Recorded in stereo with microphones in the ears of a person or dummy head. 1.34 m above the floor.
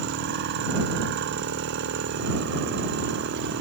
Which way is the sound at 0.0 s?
60° right (ahead or behind).